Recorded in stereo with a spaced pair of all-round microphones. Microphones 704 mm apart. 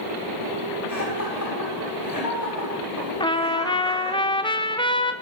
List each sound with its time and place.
0.9 s laughter: 30° left (ahead or behind), 6 m
3.2 s a trumpet: 5° left (ahead or behind), 0.7 m